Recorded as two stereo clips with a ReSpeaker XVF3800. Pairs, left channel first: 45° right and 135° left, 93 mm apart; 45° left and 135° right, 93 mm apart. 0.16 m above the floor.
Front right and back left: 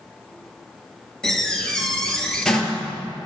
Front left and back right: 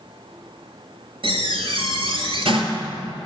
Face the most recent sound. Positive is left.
turn(degrees=-125)